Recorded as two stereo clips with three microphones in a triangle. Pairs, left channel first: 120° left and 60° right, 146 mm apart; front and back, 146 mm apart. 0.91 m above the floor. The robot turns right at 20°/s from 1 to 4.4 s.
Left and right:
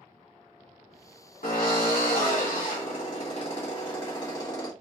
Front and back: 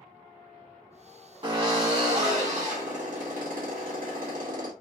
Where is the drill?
125° left, 1.9 m; by 4.7 s 175° right, 1.9 m.